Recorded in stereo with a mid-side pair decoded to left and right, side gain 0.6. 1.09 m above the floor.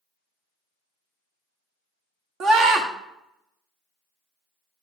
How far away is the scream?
About 1.5 m.